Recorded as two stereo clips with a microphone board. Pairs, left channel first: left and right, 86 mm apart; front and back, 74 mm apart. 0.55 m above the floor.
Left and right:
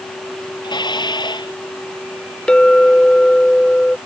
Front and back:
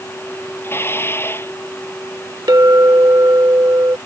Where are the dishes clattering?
60° left.